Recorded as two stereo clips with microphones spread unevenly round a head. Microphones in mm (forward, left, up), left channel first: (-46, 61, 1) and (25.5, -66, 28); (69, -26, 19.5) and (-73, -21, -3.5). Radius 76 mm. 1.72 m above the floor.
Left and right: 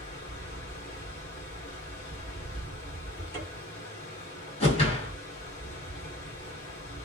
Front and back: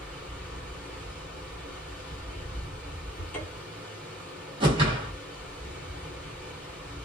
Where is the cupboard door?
40° left, 1.4 m.